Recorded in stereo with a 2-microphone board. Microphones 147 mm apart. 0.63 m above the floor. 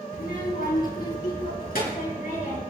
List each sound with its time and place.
0.1 s a child speaking: 85° left, 2.5 m; by 2.6 s 70° left (ahead or behind), 5 m